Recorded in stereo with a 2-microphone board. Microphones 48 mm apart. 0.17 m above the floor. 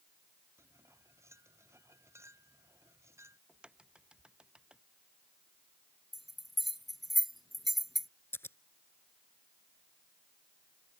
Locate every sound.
0.6 s cutlery clinking: 75° right (ahead or behind)
3.5 s a crack: 20° right (ahead or behind)
6.1 s a bell: centre (ahead or behind)
8.3 s scissors: 60° left (ahead or behind)